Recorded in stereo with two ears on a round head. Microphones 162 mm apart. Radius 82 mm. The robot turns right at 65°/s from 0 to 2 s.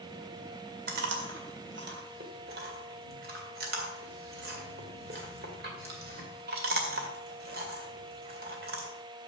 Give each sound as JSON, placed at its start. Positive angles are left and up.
{"t": 0.9, "sound": "chewing", "side_deg": -55, "distance_m": 2.0}